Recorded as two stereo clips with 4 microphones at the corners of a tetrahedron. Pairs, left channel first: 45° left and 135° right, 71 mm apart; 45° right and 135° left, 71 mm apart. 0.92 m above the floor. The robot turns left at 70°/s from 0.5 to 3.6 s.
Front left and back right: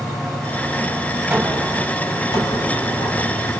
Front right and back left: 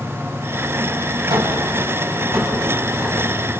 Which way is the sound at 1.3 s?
155° left.